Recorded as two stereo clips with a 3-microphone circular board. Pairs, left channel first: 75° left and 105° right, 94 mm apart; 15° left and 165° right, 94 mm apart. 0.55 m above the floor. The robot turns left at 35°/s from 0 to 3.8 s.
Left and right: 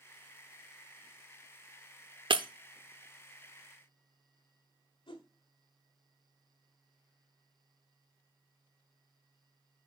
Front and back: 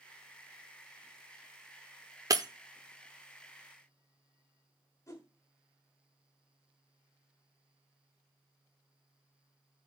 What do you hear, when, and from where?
2.3 s breaking glass: 120° right, 0.6 m; by 2.5 s 125° right, 0.6 m
5.1 s a whoosh: 70° left, 1.6 m